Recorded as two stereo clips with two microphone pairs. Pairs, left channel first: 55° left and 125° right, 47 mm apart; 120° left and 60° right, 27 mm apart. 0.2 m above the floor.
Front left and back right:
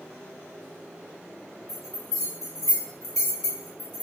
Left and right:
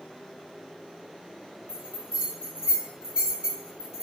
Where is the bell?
50° right, 1.8 m.